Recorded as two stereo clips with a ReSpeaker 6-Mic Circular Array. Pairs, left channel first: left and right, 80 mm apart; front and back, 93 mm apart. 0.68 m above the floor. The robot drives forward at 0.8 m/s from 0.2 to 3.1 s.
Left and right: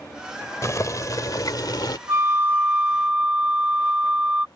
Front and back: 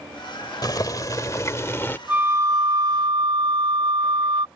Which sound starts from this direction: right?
A flute, at 2.1 s.